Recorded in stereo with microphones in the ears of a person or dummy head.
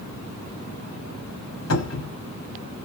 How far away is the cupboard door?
About 1.5 m.